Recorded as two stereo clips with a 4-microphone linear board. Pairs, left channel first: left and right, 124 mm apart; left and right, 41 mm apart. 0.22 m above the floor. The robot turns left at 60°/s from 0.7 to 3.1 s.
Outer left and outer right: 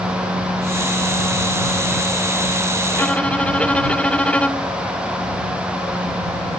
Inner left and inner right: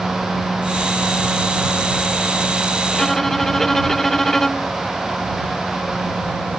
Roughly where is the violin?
Centre.